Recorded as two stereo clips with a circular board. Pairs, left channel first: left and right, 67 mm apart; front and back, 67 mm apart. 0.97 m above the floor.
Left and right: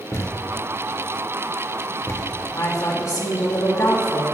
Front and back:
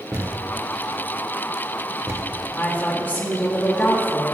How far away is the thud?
About 1.4 m.